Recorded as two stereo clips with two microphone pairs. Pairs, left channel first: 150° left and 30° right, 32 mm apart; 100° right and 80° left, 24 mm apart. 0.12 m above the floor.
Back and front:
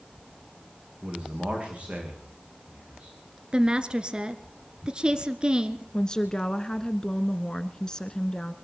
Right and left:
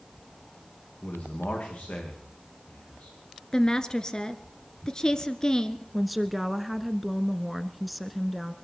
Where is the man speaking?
85° right, 8.5 m.